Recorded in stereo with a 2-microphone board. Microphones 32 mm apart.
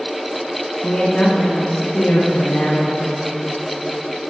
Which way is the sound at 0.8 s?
25° left (ahead or behind).